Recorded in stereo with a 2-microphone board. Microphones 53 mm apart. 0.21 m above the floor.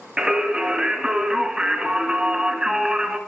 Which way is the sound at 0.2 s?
10° right (ahead or behind).